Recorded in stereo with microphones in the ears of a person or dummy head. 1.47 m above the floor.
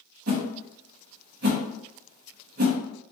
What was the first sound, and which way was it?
A whoosh, 50° right (ahead or behind).